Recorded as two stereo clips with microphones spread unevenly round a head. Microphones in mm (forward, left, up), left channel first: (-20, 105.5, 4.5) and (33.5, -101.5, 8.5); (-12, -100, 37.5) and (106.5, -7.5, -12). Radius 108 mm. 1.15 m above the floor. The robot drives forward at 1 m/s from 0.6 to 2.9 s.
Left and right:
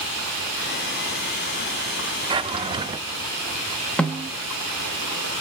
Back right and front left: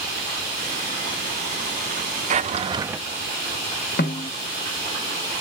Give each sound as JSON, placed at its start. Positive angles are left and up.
{"t": 2.3, "sound": "a drawer", "azimuth_deg": -10, "distance_m": 0.8}
{"t": 4.0, "sound": "a snare drum", "azimuth_deg": -170, "distance_m": 0.9}